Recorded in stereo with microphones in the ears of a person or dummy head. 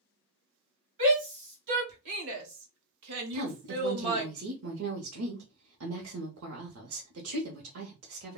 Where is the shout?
50° right (ahead or behind), 2.0 m; by 4.3 s 25° right (ahead or behind), 1.0 m.